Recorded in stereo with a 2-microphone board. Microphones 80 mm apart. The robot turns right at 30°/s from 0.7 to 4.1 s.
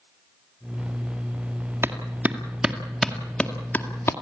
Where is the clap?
30° right (ahead or behind), 2.0 m; by 4.1 s 30° left (ahead or behind), 2.0 m.